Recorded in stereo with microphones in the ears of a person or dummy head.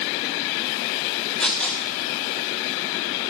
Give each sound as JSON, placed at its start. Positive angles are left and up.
{"t": 1.4, "sound": "tearing paper", "side_deg": 10, "distance_m": 1.4}